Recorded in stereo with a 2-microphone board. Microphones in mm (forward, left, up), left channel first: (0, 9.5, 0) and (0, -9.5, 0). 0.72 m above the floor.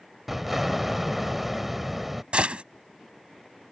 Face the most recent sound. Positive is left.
turn(degrees=-65)  # may be behind; listen again after turning